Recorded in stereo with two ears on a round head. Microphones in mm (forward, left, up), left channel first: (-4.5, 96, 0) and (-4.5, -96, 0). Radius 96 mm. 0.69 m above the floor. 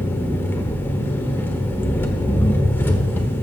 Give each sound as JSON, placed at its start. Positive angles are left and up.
{"t": 0.0, "sound": "an engine running", "side_deg": 10, "distance_m": 1.2}